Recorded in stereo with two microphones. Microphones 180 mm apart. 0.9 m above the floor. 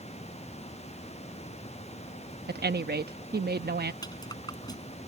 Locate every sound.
2.5 s a woman speaking: 65° right (ahead or behind)
4.0 s a rattle: 25° left (ahead or behind)